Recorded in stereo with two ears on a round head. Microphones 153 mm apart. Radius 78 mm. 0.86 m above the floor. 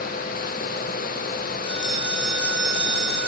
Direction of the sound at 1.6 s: 30° left (ahead or behind).